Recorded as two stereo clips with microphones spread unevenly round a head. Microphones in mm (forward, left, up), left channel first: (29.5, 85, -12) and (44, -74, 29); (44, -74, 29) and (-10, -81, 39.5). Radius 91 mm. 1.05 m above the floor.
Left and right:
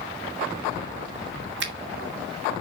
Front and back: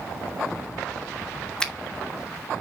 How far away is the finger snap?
About 1.9 m.